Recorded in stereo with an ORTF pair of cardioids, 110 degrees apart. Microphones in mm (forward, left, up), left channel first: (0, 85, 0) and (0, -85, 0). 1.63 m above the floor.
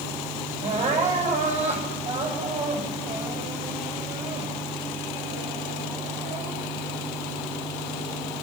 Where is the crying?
40° right, 8 m.